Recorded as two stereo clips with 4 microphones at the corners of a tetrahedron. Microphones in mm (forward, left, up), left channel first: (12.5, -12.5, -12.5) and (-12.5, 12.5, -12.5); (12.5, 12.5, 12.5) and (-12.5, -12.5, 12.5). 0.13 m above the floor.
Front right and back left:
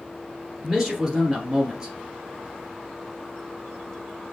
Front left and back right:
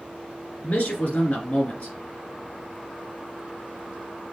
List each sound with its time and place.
0.6 s a man speaking: 65° left, 1.8 m